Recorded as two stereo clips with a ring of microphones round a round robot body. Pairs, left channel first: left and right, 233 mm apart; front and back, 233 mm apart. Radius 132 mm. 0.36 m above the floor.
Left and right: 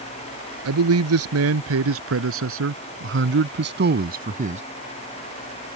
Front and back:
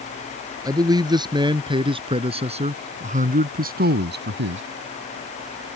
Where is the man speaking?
105° right; by 4.6 s 150° right.